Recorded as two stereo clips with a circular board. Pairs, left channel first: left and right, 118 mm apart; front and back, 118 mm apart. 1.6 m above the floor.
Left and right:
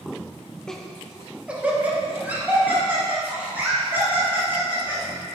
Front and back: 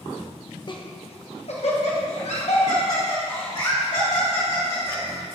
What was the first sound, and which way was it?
Laughter, 10° left.